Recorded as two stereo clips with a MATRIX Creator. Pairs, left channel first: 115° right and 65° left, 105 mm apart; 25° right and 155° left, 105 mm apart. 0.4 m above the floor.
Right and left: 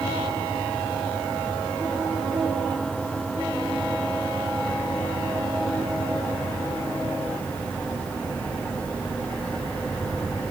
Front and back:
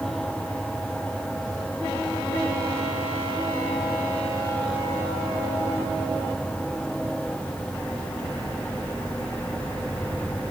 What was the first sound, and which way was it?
Only background noise.